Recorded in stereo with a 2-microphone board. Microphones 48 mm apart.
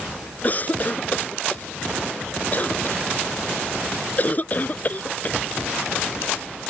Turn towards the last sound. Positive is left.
turn(degrees=35)  # may be behind; listen again after turning